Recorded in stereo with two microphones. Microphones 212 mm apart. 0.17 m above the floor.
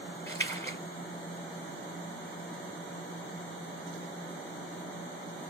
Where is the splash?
30° right (ahead or behind), 3.5 m.